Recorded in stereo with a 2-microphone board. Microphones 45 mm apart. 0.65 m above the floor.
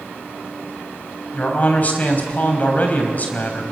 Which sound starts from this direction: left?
A man speaking, at 1.3 s.